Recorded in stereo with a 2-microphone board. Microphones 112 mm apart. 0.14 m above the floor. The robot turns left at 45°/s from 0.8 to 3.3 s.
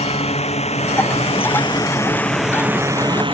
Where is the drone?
70° left (ahead or behind); by 3.3 s 50° right (ahead or behind).